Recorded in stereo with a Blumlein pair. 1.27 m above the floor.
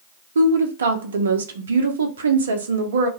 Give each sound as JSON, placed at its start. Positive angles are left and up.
{"t": 0.3, "sound": "a woman speaking", "azimuth_deg": -65, "distance_m": 0.7}